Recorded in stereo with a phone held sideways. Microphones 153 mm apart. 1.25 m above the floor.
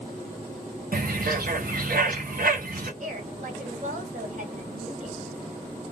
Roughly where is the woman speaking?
Right.